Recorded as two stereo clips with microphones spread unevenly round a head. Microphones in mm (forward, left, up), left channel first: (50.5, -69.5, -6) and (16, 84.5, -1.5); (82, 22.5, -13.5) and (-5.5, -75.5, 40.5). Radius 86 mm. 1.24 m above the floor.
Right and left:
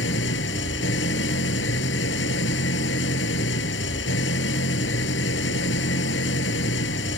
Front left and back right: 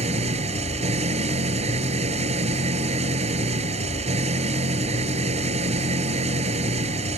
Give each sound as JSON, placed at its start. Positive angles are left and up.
{"t": 0.0, "sound": "an engine running", "azimuth_deg": -100}